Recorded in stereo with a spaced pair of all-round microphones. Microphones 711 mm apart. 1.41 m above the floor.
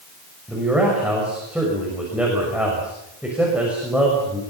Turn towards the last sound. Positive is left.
turn(degrees=0)  # may be behind; listen again after turning